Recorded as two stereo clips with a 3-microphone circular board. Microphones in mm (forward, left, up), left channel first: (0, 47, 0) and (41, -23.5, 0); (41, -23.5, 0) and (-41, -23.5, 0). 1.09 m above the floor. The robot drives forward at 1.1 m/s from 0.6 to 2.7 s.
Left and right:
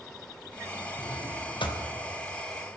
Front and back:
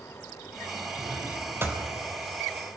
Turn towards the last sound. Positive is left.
turn(degrees=140)